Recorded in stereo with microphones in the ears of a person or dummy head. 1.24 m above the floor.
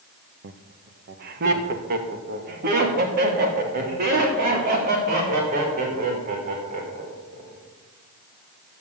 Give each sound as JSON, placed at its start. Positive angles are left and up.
{"t": 0.4, "sound": "laughter", "side_deg": -60, "distance_m": 1.0}